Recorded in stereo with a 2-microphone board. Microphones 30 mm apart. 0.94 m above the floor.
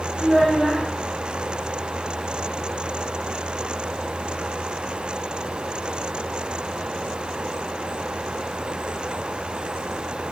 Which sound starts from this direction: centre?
A child speaking, at 0.2 s.